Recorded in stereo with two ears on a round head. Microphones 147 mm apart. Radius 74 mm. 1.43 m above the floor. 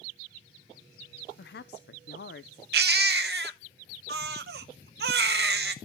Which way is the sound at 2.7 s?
70° right (ahead or behind).